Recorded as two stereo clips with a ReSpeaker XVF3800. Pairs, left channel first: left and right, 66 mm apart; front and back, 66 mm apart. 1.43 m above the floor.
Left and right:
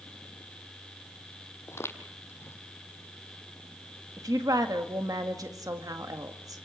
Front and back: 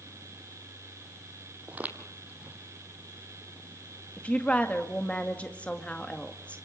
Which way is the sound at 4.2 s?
70° right.